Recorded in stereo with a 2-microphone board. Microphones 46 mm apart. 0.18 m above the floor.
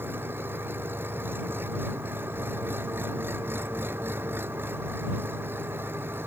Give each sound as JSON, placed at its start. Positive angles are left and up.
{"t": 0.0, "sound": "an engine running", "side_deg": -55}